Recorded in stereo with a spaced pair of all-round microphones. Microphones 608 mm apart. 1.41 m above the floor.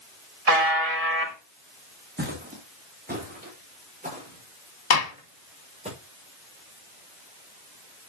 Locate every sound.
0.5 s a buzzer: 70° right (ahead or behind), 1.8 m
2.2 s footsteps: 15° right (ahead or behind), 4 m; by 5.9 s 10° right (ahead or behind), 7 m
4.9 s a gunshot: 85° left, 1.0 m